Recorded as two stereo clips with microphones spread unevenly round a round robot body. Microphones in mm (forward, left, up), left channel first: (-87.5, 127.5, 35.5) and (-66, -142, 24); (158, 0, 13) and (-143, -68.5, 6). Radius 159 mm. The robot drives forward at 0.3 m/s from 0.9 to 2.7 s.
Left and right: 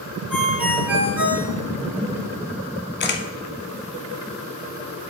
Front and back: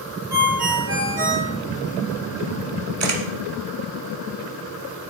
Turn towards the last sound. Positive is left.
turn(degrees=145)